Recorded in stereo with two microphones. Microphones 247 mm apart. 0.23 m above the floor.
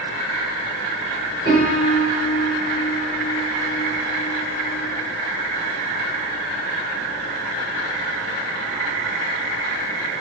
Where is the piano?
40° right (ahead or behind), 2 m.